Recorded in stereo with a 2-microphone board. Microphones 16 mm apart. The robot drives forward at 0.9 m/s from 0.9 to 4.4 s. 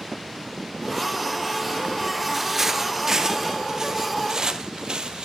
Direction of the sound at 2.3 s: 10° right (ahead or behind).